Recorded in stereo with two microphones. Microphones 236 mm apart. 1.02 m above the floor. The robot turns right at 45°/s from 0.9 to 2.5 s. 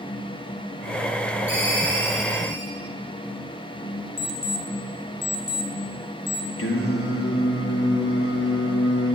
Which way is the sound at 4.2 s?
15° left (ahead or behind).